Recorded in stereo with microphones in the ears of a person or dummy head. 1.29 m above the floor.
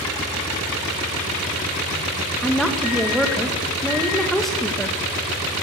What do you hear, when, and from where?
2.4 s a woman speaking: centre (ahead or behind), 1.6 m